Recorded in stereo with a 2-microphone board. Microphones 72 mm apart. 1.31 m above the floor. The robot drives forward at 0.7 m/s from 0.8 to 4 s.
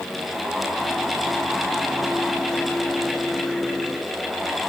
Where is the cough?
No cough in this recording.